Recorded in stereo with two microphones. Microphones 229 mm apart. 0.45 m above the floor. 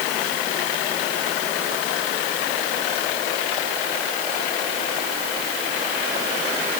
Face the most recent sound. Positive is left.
No sound to turn to.